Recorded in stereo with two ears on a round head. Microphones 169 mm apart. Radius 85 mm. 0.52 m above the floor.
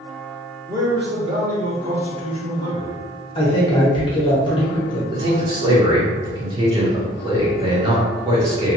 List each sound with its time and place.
0.7 s a man speaking: 15° right (ahead or behind), 0.7 m; by 3.0 s 35° right (ahead or behind), 2.0 m
3.4 s a man speaking: 30° left (ahead or behind), 0.8 m
5.1 s a man speaking: 25° right (ahead or behind), 0.9 m